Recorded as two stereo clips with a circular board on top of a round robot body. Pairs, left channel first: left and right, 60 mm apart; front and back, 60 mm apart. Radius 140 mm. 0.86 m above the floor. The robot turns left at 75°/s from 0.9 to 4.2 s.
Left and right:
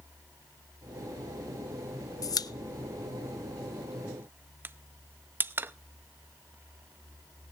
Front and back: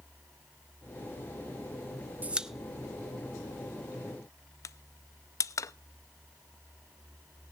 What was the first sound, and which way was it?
A pop, 115° left.